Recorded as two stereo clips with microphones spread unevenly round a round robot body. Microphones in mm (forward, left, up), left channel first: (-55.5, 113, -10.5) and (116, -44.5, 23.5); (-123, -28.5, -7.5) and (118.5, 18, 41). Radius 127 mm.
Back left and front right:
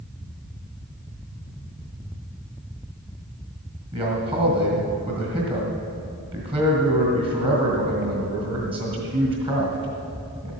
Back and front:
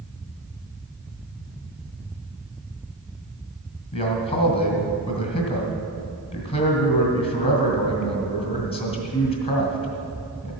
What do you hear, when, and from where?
3.9 s a man speaking: 115° right, 2 m